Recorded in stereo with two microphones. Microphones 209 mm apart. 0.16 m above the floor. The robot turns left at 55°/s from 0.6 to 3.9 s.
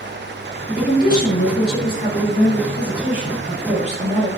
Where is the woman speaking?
130° left, 1.6 m; by 4.3 s 50° right, 1.6 m.